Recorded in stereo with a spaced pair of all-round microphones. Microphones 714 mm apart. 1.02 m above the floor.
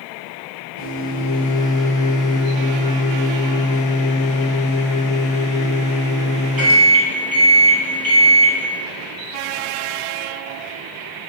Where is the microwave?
30° right (ahead or behind), 0.9 m.